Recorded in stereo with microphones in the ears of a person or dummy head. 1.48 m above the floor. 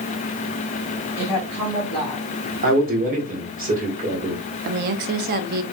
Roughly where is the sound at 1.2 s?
Centre.